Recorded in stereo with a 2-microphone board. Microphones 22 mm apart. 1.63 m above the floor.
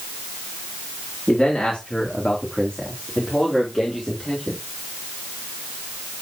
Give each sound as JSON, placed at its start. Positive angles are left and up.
{"t": 1.3, "sound": "a man speaking", "side_deg": 35, "distance_m": 3.5}